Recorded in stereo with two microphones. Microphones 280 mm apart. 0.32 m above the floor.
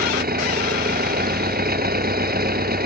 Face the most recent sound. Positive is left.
turn(degrees=-35)  # may be behind; listen again after turning